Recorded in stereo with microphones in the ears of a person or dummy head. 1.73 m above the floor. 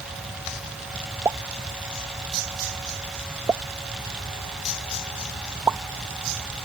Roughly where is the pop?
Centre.